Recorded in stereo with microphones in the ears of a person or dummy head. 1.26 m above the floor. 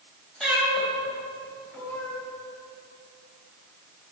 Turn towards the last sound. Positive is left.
turn(degrees=15)  # may be behind; listen again after turning